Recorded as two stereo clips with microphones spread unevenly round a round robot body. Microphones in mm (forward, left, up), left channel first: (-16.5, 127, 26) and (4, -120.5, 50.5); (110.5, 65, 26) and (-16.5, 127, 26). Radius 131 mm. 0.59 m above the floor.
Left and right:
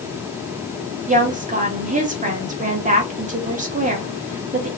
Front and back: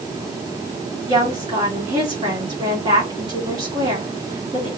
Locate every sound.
1.1 s a woman speaking: 145° right, 1.8 m